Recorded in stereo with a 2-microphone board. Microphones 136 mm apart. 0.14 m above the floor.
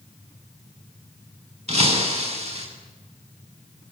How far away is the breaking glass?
About 7.5 m.